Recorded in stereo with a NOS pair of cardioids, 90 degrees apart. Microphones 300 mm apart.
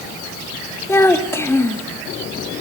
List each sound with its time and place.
0.9 s a child speaking: 10° left, 2.5 m